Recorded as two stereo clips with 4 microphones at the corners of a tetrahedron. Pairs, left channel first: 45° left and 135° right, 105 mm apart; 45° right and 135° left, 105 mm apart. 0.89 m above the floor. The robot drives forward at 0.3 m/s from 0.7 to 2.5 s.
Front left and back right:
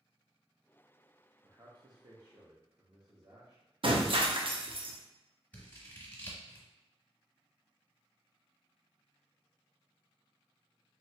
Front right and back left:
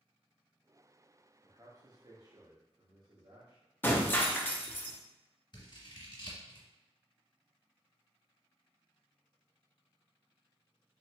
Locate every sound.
1.4 s a man speaking: straight behind, 0.6 m
3.8 s breaking glass: 115° right, 0.6 m
5.5 s scissors: 25° right, 1.4 m